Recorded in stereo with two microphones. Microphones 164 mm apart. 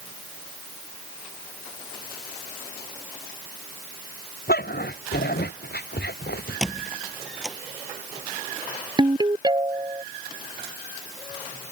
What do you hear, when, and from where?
4.5 s a dog barking: 75° left (ahead or behind); by 6.6 s 80° left
6.6 s a squeak: centre (ahead or behind)
9.0 s a ringtone: 25° right (ahead or behind)